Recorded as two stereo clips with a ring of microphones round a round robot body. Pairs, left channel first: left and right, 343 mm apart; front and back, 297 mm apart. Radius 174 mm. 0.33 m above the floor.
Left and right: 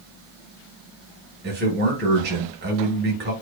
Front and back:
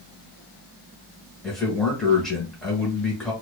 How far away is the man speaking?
About 1.0 m.